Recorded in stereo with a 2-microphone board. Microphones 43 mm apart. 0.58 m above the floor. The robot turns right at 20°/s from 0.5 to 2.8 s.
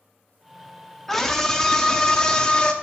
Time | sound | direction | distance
1.1 | a scream | 15° left | 0.7 m